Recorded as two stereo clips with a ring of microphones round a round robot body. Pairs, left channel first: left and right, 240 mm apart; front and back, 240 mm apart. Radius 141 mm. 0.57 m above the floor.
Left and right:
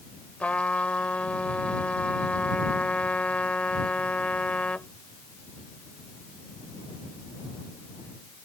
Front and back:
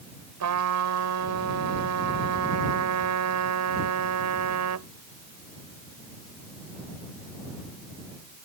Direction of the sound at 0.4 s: 175° left.